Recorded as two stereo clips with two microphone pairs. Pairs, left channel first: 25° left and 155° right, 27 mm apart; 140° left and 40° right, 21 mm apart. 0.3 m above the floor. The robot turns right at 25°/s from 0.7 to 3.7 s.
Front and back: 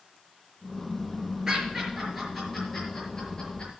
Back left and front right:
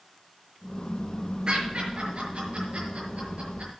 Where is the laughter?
90° right, 6 m; by 3.7 s 35° right, 6 m.